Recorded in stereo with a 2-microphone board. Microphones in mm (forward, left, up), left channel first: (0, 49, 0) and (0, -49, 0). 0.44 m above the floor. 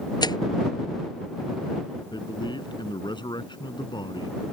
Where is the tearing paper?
50° left (ahead or behind).